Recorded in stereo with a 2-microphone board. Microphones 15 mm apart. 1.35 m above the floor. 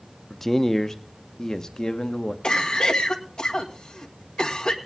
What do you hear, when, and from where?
0.3 s a man speaking: 15° left (ahead or behind), 0.7 m; by 2.3 s 60° left (ahead or behind), 1.4 m
2.4 s a cough: 75° left (ahead or behind), 1.7 m